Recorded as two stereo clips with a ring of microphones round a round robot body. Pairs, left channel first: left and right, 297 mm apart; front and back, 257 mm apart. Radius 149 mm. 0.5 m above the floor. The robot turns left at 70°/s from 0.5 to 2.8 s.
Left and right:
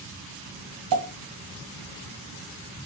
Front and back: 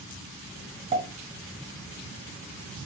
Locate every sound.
0.9 s a pop: 110° right, 1.8 m; by 1.1 s 125° right, 1.8 m